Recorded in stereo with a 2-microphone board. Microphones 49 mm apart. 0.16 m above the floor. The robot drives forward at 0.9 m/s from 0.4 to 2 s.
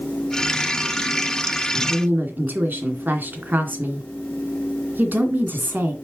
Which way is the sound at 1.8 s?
45° right (ahead or behind).